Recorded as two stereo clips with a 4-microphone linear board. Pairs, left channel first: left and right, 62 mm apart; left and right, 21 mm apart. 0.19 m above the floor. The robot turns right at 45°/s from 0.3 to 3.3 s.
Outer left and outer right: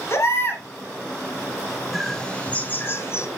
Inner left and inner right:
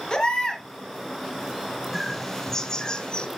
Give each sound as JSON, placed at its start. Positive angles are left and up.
{"t": 0.1, "sound": "a baby crying", "side_deg": 45, "distance_m": 1.6}
{"t": 1.9, "sound": "a bird", "azimuth_deg": 5, "distance_m": 1.2}